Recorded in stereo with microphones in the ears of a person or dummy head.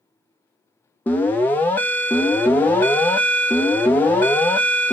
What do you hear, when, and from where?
1.1 s an alarm: 10° left (ahead or behind), 0.5 m